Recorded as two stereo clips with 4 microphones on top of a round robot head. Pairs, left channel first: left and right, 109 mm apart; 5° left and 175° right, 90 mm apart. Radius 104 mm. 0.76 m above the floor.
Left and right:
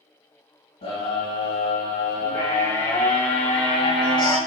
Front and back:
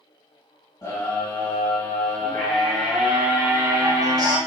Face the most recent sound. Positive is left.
turn(degrees=145)